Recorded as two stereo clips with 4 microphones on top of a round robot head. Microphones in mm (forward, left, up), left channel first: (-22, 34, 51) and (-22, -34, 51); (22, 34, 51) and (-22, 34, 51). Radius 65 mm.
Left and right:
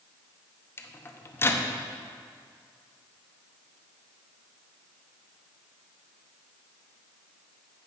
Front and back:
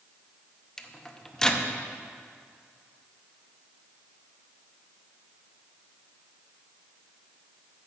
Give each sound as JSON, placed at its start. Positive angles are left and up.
{"t": 0.8, "sound": "a microwave", "azimuth_deg": 70, "distance_m": 0.8}